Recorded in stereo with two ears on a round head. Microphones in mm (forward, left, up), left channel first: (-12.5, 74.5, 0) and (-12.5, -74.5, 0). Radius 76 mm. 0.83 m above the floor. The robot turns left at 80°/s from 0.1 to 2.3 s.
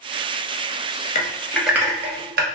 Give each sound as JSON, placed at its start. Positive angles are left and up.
{"t": 1.1, "sound": "typing on a keyboard", "side_deg": 40, "distance_m": 0.5}